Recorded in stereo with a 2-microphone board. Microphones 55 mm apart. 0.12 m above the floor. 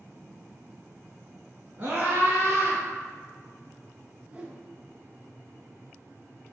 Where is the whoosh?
20° right (ahead or behind), 0.7 m.